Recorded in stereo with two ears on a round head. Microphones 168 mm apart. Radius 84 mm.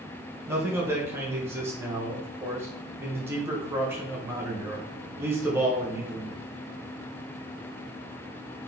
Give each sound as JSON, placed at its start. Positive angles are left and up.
{"t": 0.5, "sound": "a man speaking", "side_deg": -15, "distance_m": 0.8}